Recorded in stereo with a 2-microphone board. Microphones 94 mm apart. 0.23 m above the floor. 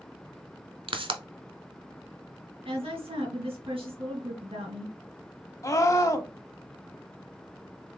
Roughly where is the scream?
Left.